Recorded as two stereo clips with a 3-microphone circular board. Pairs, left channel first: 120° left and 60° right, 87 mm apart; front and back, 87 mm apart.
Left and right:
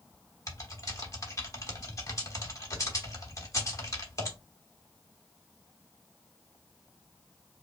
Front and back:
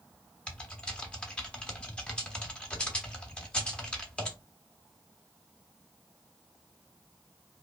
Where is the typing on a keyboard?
75° left, 1.1 m.